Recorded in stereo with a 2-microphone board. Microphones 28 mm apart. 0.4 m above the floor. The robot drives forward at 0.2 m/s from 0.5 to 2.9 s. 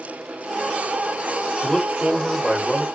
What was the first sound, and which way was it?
A man speaking, centre (ahead or behind).